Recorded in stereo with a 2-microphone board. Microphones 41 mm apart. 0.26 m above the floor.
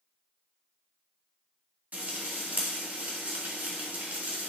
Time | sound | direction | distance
1.9 | frying | 50° right (ahead or behind) | 1.9 m